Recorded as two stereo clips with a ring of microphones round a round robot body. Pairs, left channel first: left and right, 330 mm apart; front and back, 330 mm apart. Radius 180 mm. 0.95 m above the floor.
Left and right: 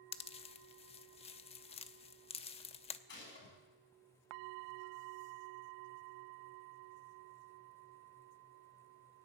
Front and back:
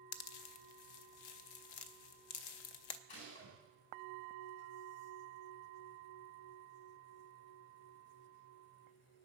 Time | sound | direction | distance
0.1 | a pop | 15° left | 0.6 m
3.1 | a gunshot | 30° left | 7 m